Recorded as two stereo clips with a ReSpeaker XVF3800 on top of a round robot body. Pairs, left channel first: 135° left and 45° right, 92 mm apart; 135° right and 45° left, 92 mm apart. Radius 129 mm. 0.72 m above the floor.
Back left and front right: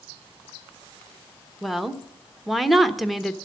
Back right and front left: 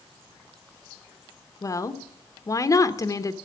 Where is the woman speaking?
130° right, 1.1 m.